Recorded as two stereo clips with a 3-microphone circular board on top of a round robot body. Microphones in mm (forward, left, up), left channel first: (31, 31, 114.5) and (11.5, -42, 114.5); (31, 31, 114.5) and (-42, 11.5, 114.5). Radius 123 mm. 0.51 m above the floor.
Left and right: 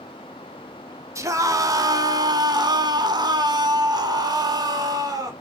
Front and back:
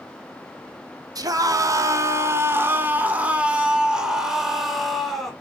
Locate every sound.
1.1 s a scream: 145° right, 2 m; by 5.3 s 70° right, 4 m